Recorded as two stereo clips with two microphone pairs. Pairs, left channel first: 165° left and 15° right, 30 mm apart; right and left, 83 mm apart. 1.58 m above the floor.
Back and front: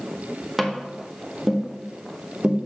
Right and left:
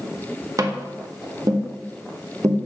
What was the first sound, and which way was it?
Tapping, 60° left.